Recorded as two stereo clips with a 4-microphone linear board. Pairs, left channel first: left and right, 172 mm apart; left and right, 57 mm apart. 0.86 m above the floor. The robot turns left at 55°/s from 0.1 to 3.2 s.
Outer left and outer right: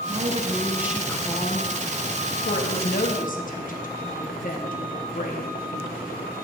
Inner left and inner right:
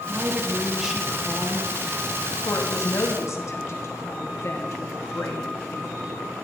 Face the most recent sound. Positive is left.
turn(degrees=60)